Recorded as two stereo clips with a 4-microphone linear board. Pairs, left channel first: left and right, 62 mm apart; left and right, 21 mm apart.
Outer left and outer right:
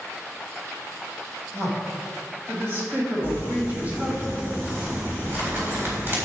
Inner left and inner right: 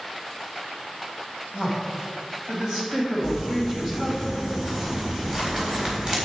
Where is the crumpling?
35° right (ahead or behind), 3.5 m.